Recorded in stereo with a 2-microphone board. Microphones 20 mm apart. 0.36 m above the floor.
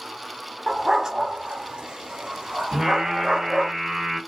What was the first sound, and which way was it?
A dog barking, 10° right (ahead or behind).